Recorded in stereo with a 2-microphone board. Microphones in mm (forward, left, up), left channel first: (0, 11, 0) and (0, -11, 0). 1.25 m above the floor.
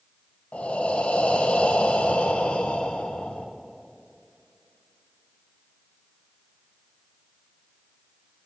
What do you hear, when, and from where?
0.5 s breathing: 75° left (ahead or behind), 0.8 m